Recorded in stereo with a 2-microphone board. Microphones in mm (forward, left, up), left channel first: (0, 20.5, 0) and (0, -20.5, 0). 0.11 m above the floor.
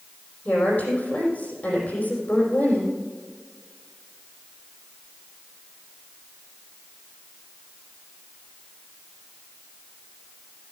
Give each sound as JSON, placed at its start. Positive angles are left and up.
{"t": 0.5, "sound": "a woman speaking", "side_deg": 40, "distance_m": 5.0}